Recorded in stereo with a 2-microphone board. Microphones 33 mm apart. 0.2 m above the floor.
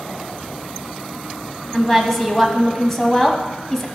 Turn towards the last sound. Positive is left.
turn(degrees=10)  # may be behind; listen again after turning